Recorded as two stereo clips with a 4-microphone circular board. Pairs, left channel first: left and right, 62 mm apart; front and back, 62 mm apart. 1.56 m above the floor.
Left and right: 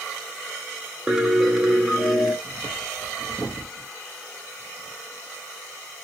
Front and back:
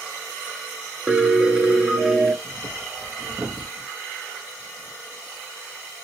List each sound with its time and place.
1.1 s a piano: 150° right, 1.0 m
2.4 s breathing: 140° left, 1.2 m